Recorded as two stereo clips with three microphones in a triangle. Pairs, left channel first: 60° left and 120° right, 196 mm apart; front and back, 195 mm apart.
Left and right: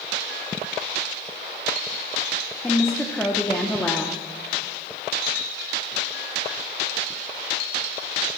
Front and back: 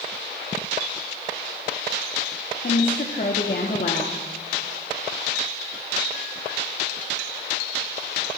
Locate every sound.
2.6 s a woman speaking: 20° right, 0.8 m